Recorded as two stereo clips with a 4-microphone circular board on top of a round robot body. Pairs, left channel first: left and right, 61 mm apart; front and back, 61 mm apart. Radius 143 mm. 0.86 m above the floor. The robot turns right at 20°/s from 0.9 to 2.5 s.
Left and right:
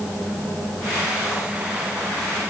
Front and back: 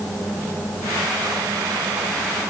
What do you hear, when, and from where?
Only background noise.